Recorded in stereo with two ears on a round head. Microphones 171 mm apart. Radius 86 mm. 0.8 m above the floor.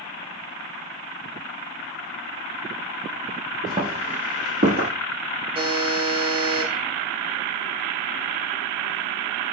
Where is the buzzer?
30° right (ahead or behind), 0.6 m.